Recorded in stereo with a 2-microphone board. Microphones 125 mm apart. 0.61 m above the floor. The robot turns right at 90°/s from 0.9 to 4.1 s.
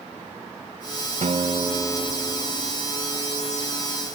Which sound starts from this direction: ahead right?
A guitar, at 1.2 s.